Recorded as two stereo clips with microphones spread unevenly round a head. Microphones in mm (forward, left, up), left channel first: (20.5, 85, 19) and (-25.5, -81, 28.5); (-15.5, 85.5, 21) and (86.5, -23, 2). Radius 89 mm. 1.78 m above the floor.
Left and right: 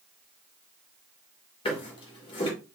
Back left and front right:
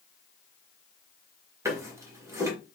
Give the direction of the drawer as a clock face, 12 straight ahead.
11 o'clock.